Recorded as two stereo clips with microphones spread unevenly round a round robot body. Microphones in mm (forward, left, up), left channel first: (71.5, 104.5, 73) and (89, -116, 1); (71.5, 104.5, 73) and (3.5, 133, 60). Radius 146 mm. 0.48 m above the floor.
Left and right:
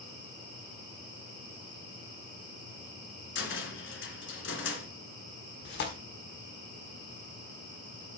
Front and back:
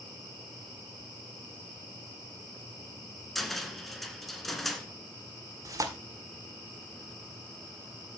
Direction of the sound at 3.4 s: 65° left.